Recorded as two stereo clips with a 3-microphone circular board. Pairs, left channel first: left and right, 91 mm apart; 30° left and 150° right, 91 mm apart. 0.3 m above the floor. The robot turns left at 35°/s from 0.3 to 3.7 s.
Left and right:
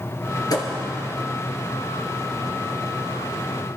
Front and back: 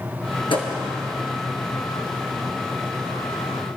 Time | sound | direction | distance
0.5 | a thud | 45° left | 2.5 m